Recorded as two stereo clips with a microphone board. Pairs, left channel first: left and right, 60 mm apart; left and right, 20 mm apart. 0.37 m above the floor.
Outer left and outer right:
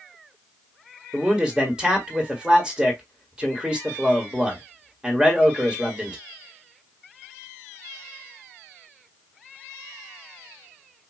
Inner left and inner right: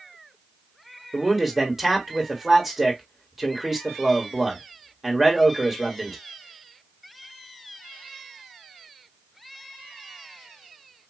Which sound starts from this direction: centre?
A man speaking, at 1.1 s.